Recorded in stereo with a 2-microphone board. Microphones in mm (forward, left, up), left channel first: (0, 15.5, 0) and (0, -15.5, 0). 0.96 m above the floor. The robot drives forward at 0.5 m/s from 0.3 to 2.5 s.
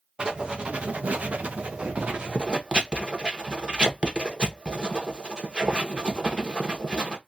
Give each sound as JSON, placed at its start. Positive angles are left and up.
{"t": 0.2, "sound": "writing", "side_deg": -30, "distance_m": 0.7}